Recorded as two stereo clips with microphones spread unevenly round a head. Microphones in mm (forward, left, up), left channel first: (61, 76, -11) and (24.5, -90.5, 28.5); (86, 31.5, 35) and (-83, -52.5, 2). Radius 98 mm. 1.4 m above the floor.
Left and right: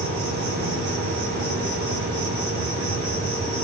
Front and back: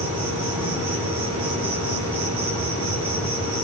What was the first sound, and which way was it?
An insect, 155° right.